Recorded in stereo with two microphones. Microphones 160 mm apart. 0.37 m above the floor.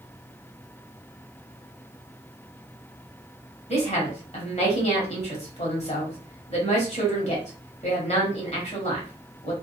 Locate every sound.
3.7 s a woman speaking: 40° left (ahead or behind), 1.3 m